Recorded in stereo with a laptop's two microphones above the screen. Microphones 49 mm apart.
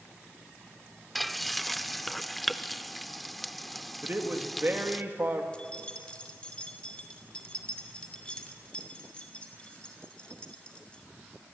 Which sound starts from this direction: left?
Keys jangling, at 5.5 s.